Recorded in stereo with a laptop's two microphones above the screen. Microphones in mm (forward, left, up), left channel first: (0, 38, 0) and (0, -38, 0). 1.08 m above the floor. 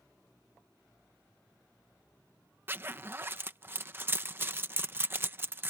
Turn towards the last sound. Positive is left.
turn(degrees=-30)  # may be behind; listen again after turning